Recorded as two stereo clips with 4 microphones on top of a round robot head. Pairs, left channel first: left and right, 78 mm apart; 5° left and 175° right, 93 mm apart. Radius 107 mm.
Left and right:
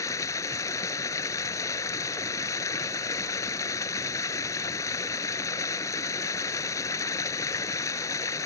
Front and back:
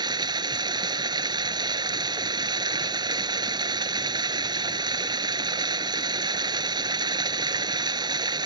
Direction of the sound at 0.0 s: 145° left.